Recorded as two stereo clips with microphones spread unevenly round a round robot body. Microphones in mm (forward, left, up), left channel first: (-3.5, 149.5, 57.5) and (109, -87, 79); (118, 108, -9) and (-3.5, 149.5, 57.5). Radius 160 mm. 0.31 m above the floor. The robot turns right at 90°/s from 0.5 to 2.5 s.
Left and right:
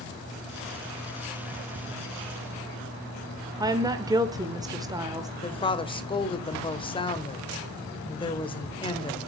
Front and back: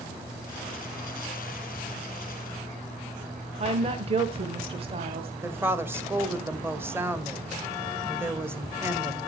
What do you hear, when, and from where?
3.6 s a woman speaking: 135° right, 0.9 m
5.4 s a woman speaking: 60° left, 1.4 m